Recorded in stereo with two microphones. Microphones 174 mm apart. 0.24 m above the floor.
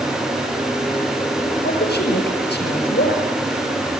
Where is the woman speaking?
70° left (ahead or behind), 5.5 m.